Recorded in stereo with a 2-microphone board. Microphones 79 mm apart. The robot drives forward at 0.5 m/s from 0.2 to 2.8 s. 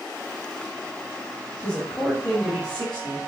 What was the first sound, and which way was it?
A woman speaking, 15° left (ahead or behind).